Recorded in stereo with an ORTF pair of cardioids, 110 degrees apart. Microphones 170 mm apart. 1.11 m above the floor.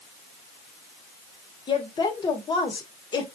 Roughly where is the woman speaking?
Ahead left.